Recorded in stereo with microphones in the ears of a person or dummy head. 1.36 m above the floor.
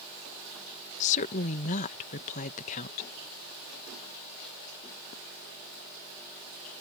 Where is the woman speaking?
40° left (ahead or behind).